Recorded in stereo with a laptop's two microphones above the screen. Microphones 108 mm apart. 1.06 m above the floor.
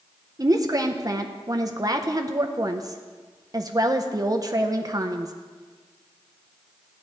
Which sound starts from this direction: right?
A woman speaking, at 0.4 s.